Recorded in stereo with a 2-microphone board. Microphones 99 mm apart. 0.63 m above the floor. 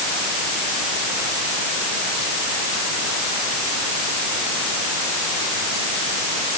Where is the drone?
No drone in this recording.